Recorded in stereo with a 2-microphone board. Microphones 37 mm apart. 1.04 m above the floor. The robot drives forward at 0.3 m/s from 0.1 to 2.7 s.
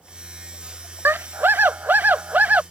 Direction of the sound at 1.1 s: 75° right (ahead or behind).